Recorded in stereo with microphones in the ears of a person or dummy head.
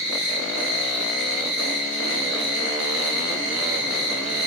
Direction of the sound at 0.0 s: 5° right (ahead or behind).